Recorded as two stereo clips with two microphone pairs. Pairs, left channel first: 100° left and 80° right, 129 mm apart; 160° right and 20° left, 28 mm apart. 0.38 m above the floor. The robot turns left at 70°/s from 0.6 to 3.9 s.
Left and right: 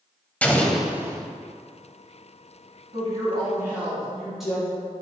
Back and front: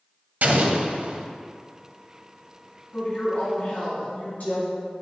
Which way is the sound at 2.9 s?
100° right.